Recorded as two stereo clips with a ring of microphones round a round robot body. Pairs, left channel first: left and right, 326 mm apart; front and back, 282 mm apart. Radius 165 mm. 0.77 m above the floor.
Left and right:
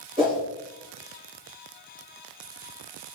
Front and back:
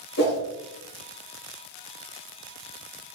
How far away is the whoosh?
About 1.9 m.